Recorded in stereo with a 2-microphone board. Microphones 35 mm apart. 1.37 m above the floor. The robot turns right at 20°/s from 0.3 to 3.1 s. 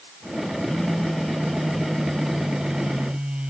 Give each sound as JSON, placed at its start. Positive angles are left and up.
{"t": 0.7, "sound": "a phone buzzing", "azimuth_deg": 160}